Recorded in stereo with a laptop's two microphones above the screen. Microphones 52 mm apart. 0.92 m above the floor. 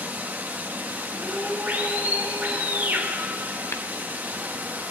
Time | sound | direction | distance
0.0 | running water | 35° right (ahead or behind) | 1.3 m
1.1 | a scream | 20° left (ahead or behind) | 6 m
3.7 | tapping | 60° left (ahead or behind) | 0.9 m